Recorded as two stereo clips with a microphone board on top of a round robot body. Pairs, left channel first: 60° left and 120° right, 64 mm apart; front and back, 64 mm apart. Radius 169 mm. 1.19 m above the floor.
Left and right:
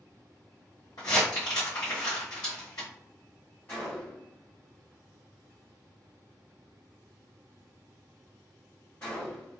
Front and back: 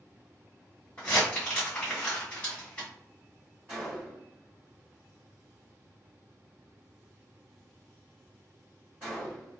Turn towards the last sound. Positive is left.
turn(degrees=115)